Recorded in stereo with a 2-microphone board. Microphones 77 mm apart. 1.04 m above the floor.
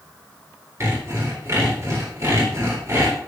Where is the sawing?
35° right (ahead or behind), 4 m.